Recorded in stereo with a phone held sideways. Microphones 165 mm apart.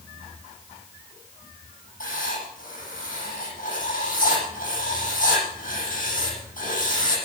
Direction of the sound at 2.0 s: 55° left (ahead or behind).